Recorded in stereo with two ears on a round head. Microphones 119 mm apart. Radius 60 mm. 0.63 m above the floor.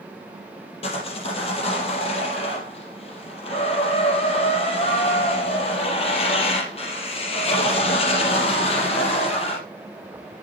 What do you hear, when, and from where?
0.8 s sawing: 50° left (ahead or behind), 4.5 m